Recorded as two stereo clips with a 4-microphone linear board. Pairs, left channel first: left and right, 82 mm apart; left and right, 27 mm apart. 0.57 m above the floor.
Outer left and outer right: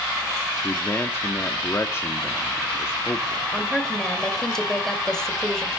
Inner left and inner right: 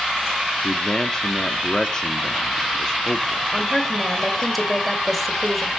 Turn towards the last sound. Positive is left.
turn(degrees=5)  # may be behind; listen again after turning